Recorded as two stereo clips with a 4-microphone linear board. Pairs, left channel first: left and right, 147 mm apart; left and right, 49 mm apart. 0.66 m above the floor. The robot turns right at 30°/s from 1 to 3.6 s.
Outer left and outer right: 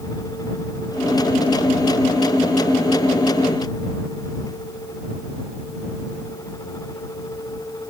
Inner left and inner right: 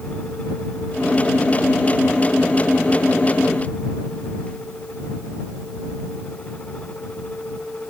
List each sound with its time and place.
Only background noise.